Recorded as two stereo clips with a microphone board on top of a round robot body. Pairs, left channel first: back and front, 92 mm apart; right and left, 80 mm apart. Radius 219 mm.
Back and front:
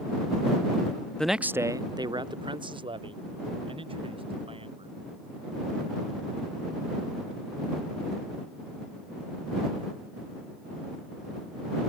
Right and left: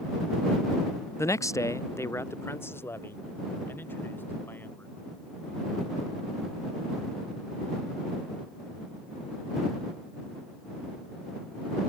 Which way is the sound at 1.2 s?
105° right.